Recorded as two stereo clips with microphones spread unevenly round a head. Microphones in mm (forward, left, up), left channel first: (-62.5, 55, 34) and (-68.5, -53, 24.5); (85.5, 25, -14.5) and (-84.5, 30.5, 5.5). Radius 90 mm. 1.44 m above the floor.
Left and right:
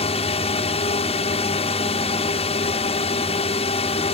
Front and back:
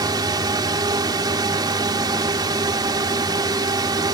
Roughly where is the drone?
Left.